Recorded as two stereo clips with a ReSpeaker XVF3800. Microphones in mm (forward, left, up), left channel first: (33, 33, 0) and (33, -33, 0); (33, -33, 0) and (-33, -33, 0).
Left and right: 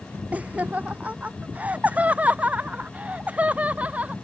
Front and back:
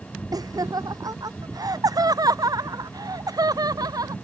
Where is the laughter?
160° right.